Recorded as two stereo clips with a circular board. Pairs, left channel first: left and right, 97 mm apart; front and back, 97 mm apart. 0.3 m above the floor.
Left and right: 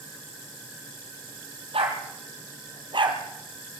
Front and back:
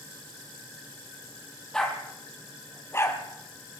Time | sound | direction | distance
1.7 | a dog barking | 80° right | 3.5 m